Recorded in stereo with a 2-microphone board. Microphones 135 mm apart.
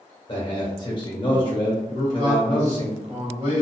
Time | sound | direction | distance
0.3 | a man speaking | 35° left (ahead or behind) | 1.5 m
1.9 | a man speaking | 50° right (ahead or behind) | 1.2 m